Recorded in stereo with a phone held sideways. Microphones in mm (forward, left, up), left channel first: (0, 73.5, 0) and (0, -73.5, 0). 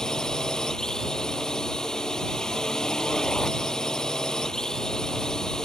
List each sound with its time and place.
0.0 s a drone: 5° left (ahead or behind)